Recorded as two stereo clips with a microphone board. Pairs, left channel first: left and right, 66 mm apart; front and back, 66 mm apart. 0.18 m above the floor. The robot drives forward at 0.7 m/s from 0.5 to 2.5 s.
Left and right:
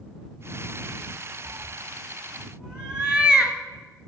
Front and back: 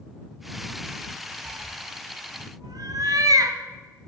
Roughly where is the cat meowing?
Behind right.